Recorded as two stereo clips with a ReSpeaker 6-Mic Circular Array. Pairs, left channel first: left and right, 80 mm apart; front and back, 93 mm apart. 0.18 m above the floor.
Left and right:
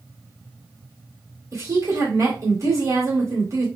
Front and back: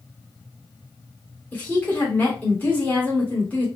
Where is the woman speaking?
65° right, 2.5 m.